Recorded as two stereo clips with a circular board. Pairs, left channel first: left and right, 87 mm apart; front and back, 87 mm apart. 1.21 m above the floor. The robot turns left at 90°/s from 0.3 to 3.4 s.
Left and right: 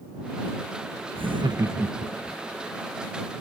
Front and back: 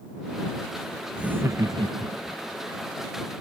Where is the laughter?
95° right; by 2.4 s 155° left.